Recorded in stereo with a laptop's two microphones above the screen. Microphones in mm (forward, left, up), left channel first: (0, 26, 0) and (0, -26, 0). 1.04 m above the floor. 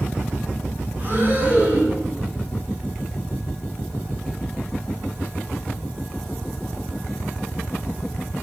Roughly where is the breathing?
Right.